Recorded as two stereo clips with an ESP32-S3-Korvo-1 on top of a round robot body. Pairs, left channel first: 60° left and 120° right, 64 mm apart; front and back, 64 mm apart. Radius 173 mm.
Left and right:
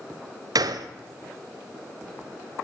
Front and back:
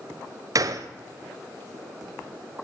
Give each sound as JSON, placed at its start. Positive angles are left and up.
{"t": 0.6, "sound": "a gunshot", "azimuth_deg": -145, "distance_m": 0.8}